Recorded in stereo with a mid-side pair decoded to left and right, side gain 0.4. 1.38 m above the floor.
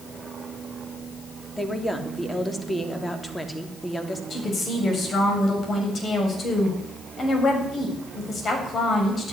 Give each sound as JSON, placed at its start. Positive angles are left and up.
{"t": 1.6, "sound": "a woman speaking", "azimuth_deg": 10, "distance_m": 3.0}
{"t": 4.3, "sound": "a woman speaking", "azimuth_deg": 50, "distance_m": 7.5}